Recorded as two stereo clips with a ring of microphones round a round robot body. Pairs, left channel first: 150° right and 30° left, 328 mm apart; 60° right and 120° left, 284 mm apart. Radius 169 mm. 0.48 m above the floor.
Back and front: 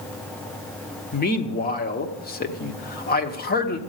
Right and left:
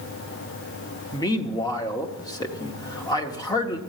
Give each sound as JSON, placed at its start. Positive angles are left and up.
{"t": 1.1, "sound": "a man speaking", "azimuth_deg": -125, "distance_m": 1.0}